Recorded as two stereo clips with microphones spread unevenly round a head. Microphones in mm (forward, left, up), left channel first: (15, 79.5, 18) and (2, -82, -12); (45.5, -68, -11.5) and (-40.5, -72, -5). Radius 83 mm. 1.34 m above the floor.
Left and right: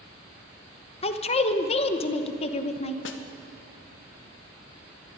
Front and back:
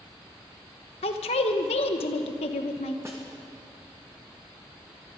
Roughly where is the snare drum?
Left.